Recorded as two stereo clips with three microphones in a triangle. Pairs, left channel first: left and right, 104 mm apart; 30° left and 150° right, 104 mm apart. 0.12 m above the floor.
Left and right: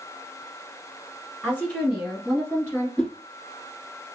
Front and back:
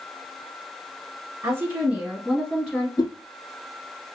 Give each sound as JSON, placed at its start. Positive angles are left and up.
{"t": 1.4, "sound": "a woman speaking", "azimuth_deg": -165, "distance_m": 1.5}
{"t": 3.0, "sound": "a whoosh", "azimuth_deg": 15, "distance_m": 1.1}